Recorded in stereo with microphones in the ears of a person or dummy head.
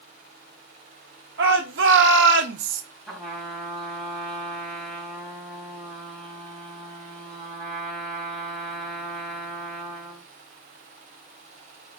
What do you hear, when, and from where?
1.4 s a shout: 60° right (ahead or behind), 1.0 m; by 2.8 s 45° right (ahead or behind), 0.6 m
3.1 s a trumpet: 5° left (ahead or behind), 2 m